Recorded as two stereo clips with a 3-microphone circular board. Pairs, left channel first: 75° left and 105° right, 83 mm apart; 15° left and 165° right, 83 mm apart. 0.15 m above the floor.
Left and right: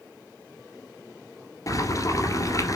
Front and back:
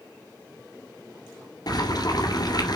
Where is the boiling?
35° left, 1.7 m.